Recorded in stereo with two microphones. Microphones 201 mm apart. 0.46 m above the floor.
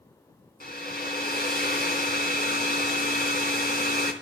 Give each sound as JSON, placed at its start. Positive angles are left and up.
{"t": 0.6, "sound": "a hair dryer", "side_deg": 50, "distance_m": 3.0}